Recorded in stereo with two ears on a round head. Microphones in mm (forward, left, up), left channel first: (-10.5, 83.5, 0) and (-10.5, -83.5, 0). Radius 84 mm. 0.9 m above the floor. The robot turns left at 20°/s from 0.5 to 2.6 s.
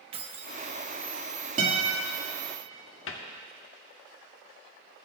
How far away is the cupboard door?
About 1.5 m.